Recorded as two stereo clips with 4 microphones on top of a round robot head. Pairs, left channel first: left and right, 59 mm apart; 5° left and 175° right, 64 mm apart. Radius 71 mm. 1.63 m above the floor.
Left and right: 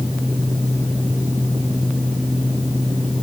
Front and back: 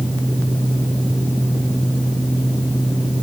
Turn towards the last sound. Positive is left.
No sound to turn to.